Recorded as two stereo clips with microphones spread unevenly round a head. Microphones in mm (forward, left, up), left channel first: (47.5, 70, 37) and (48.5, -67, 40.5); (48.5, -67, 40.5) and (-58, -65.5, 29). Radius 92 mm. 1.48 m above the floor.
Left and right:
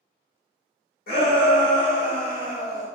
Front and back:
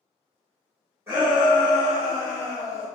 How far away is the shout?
About 1.5 m.